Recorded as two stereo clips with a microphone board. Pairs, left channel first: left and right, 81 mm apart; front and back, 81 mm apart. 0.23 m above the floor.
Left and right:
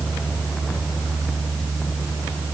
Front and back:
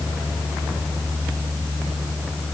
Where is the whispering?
I don't hear whispering.